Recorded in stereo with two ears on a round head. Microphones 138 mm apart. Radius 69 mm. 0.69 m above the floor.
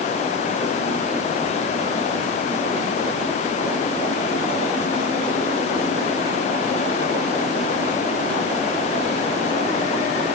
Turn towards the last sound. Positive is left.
No sound to turn to.